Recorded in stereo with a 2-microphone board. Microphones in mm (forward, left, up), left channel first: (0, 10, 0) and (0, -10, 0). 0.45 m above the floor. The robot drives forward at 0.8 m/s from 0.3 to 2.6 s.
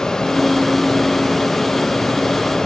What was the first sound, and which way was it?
Only background noise.